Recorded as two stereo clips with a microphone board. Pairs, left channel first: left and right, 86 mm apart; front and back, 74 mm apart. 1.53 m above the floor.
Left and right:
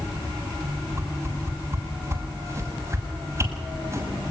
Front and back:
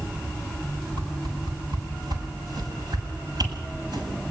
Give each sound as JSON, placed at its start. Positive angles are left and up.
{"t": 1.0, "sound": "a whoosh", "azimuth_deg": -150, "distance_m": 7.5}